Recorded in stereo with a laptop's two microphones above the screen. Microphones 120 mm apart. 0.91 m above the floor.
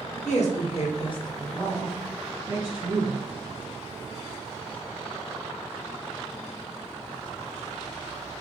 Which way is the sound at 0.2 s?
70° left (ahead or behind).